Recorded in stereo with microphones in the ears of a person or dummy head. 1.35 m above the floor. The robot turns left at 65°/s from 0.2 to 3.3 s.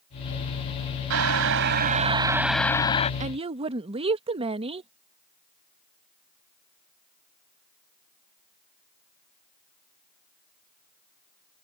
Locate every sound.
1.1 s boiling: 90° right; by 3.1 s 140° left
3.2 s a woman speaking: 35° right (ahead or behind); by 4.9 s 30° right (ahead or behind)